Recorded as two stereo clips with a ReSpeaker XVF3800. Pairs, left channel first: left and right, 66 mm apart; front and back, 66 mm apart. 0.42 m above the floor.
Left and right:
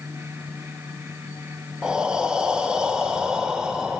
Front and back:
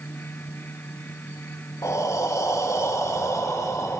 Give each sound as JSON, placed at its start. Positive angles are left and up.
{"t": 1.8, "sound": "breathing", "azimuth_deg": -15, "distance_m": 0.5}